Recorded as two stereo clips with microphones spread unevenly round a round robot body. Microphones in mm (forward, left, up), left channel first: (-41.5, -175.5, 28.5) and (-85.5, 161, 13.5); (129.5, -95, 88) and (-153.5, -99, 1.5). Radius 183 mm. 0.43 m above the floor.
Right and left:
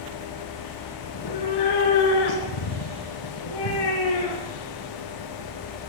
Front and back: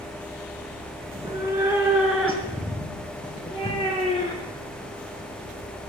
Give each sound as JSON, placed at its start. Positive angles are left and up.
{"t": 1.1, "sound": "a cat meowing", "azimuth_deg": -105, "distance_m": 2.5}